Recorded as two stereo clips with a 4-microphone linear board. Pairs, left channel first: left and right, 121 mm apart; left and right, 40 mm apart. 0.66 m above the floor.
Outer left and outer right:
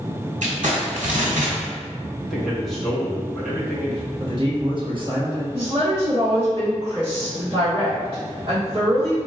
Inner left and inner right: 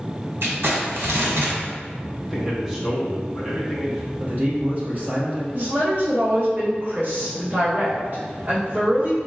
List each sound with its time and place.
0.4 s crumpling: 85° right, 1.2 m
2.2 s a man speaking: centre (ahead or behind), 1.1 m
4.2 s a man speaking: 45° right (ahead or behind), 1.4 m
5.5 s a woman speaking: 45° right (ahead or behind), 1.4 m